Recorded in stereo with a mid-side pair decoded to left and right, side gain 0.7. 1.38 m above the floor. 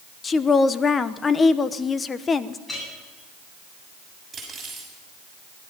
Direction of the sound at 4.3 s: 20° right.